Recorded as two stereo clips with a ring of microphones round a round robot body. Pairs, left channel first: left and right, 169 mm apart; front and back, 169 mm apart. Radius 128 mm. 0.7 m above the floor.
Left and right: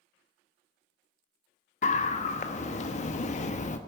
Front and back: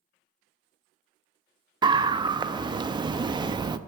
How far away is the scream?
About 0.6 m.